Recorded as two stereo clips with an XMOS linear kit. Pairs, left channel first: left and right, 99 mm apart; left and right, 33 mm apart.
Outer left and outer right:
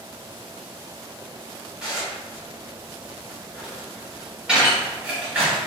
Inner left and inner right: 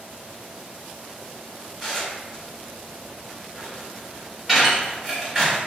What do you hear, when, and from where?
1.8 s dishes clattering: 10° right (ahead or behind), 1.1 m